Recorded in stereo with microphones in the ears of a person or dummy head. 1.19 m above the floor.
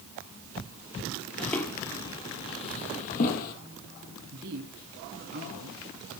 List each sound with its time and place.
1.4 s footsteps: 10° left (ahead or behind), 1.6 m; by 3.5 s 50° left (ahead or behind), 2 m
4.3 s a man speaking: 55° right (ahead or behind), 2 m